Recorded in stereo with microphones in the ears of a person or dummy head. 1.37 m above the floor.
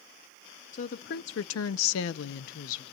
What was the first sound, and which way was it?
A woman speaking, 35° left (ahead or behind).